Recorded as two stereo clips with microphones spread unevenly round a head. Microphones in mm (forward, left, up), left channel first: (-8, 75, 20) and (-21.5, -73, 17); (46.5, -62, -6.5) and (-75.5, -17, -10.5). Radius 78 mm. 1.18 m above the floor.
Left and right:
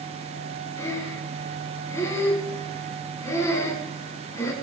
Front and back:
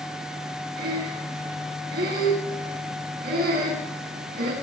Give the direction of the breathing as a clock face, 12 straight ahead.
7 o'clock.